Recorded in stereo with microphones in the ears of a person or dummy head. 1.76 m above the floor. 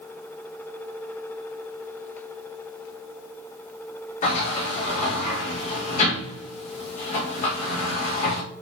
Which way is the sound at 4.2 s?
45° left (ahead or behind).